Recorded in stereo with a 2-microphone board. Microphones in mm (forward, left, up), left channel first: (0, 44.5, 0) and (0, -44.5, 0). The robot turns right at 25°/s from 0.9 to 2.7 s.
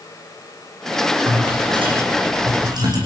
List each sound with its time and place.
1.3 s a rattle: 80° right, 9 m; by 3.0 s 50° right (ahead or behind), 9 m